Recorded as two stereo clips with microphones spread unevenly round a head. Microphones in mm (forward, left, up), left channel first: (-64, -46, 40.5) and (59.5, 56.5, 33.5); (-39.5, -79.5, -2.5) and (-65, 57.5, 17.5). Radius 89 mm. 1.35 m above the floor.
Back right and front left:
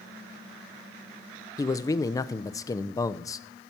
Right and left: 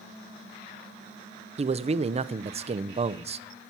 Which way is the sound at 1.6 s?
150° left.